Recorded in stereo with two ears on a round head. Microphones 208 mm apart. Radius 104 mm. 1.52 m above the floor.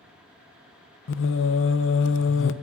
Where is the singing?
60° left (ahead or behind), 0.7 m.